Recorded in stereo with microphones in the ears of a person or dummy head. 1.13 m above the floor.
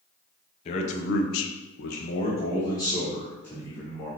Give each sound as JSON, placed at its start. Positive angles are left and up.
{"t": 0.7, "sound": "a man speaking", "side_deg": 35, "distance_m": 0.9}